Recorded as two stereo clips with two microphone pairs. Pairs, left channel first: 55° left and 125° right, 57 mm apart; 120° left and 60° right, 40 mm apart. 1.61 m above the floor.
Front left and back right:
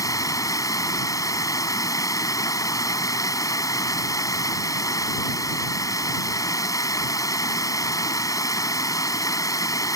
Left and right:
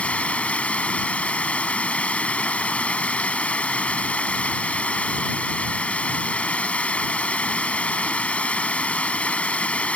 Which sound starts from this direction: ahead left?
Running water, at 0.0 s.